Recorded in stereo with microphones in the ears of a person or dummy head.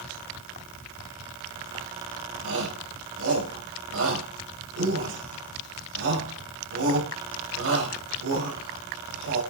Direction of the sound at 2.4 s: 85° right.